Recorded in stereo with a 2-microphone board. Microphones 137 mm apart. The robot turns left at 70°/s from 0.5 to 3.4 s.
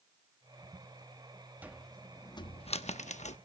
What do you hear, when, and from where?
1.6 s a cupboard door: 10° right (ahead or behind), 0.8 m; by 3.4 s 55° left (ahead or behind), 0.8 m